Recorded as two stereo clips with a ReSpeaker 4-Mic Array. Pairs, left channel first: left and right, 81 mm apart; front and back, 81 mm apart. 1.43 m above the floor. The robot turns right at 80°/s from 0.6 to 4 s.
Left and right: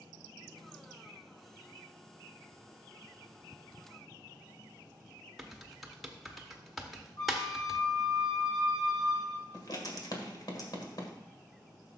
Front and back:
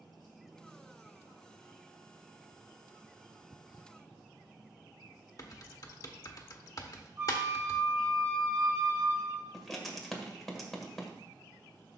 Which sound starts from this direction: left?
Writing, at 9.5 s.